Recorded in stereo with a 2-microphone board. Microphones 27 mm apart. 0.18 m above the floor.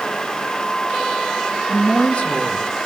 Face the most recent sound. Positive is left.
turn(degrees=60)  # may be behind; listen again after turning